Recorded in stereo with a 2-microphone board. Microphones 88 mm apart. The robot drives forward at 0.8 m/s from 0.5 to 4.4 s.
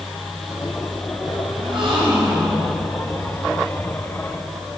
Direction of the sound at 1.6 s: 70° right (ahead or behind).